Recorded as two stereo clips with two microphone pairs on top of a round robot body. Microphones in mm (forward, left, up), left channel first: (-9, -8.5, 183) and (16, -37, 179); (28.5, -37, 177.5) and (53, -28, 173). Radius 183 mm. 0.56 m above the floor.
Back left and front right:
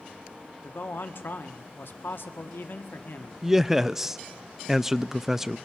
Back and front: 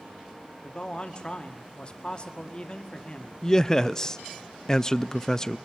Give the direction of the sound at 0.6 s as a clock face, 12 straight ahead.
7 o'clock.